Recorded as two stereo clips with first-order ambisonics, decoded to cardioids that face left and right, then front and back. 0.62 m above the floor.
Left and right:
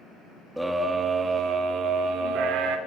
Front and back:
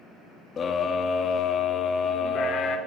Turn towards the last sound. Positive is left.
turn(degrees=-55)